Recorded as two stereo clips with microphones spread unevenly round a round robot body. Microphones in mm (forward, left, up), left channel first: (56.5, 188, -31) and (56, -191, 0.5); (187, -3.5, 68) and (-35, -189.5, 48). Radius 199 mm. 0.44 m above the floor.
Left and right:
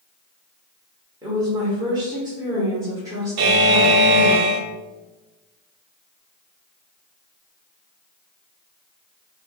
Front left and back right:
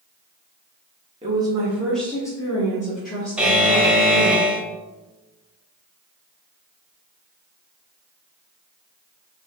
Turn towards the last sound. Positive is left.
turn(degrees=-55)